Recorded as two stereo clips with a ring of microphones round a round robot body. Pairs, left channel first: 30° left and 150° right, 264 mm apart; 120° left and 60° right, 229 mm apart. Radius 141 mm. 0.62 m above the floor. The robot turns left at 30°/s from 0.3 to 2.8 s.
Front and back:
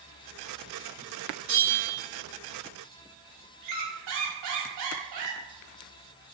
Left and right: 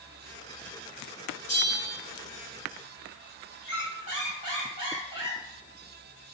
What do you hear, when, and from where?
1.5 s a bell: 160° right, 1.9 m; by 2.0 s 175° right, 1.9 m
3.6 s a squeak: 130° right, 0.9 m